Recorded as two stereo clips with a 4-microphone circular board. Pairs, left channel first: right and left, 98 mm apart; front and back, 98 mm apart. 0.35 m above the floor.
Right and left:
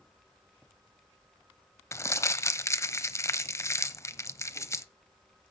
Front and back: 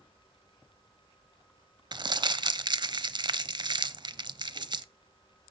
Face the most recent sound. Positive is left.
turn(degrees=-145)